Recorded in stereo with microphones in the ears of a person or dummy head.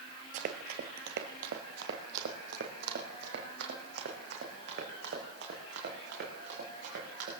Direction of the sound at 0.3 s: 35° right (ahead or behind).